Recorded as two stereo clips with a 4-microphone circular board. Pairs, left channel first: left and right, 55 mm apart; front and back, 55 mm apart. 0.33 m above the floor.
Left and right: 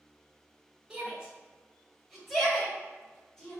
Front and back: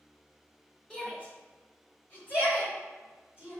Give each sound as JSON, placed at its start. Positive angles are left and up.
{"t": 0.9, "sound": "a shout", "azimuth_deg": -50, "distance_m": 1.6}